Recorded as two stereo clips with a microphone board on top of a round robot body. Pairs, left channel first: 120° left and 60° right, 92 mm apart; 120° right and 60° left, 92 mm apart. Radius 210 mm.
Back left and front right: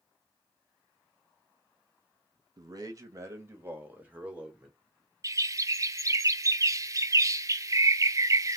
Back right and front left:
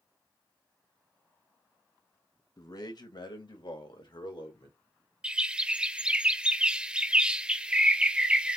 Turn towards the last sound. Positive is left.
turn(degrees=-20)